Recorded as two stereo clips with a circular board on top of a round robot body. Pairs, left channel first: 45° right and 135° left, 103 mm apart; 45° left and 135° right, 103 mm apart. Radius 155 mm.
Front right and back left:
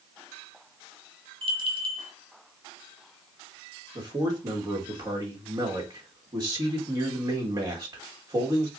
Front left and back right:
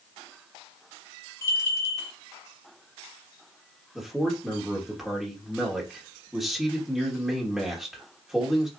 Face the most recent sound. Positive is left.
turn(degrees=140)